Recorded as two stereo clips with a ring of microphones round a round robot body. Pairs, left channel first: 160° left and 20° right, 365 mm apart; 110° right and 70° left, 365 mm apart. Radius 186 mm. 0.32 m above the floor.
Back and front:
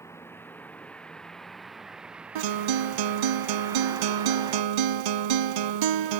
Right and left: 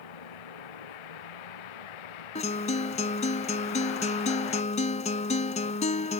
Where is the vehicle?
120° right; by 6.2 s 95° right.